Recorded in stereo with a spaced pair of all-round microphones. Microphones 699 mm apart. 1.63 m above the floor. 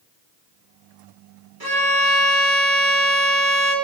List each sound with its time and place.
1.6 s a violin: 30° right (ahead or behind), 1.0 m